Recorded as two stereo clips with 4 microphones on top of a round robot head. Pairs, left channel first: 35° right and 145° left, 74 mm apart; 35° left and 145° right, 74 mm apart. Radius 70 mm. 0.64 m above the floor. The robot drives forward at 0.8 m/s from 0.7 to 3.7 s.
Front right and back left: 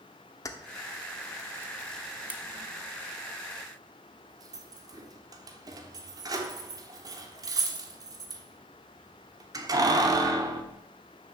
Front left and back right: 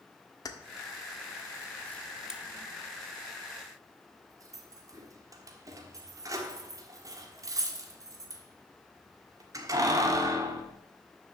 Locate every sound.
0.5 s keys jangling: 5° left, 1.2 m; by 10.6 s 175° left, 1.4 m